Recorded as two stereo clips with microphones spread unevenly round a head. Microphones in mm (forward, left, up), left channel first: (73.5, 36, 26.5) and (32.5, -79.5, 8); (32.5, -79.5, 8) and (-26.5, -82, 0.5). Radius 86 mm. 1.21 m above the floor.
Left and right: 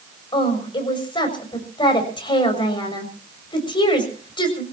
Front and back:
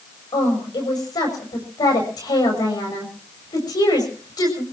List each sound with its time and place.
0.3 s a woman speaking: 20° left, 6.5 m